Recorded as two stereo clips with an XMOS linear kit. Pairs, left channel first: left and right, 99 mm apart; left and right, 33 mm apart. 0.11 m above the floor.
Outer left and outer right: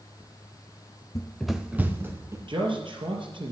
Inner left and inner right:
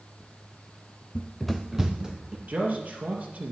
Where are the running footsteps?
35° left (ahead or behind), 0.6 m; by 2.4 s 25° right (ahead or behind), 2 m.